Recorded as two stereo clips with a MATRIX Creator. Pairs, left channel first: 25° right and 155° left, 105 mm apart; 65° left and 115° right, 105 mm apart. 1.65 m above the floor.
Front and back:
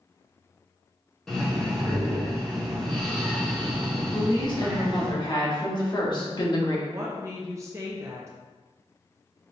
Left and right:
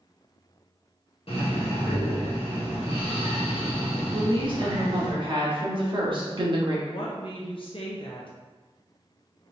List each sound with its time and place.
1.3 s breathing: 60° left, 1.2 m
4.1 s a woman speaking: 70° right, 1.2 m
6.9 s a woman speaking: 95° left, 0.7 m